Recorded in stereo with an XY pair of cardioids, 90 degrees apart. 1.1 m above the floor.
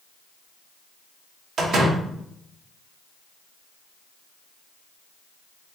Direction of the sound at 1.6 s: 65° right.